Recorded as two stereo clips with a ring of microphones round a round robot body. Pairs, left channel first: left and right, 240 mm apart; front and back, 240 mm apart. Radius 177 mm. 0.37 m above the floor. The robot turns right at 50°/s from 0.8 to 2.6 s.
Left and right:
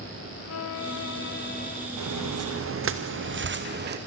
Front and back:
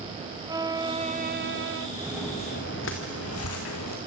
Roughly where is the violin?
Left.